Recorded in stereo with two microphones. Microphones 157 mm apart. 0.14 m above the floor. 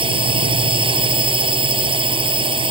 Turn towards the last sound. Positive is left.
turn(degrees=-35)  # may be behind; listen again after turning